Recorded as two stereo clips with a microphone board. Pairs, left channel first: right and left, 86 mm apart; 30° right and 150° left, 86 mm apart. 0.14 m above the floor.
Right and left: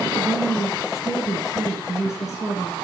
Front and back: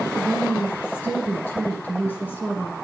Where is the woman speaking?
85° right, 1.8 m.